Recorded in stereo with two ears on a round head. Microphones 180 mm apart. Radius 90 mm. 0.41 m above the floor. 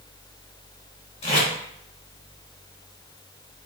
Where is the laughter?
I don't hear laughter.